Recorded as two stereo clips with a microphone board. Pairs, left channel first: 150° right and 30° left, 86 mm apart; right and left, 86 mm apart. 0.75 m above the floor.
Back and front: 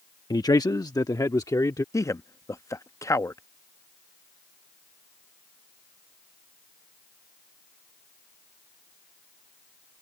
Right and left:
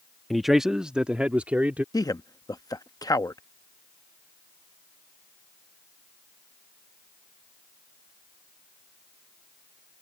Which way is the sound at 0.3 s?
Straight behind.